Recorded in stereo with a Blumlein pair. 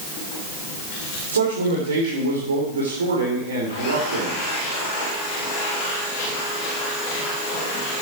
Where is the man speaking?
70° right, 4 m.